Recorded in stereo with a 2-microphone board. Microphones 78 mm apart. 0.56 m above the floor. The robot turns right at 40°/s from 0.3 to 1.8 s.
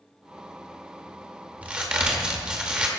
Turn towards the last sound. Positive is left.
turn(degrees=-15)  # may be behind; listen again after turning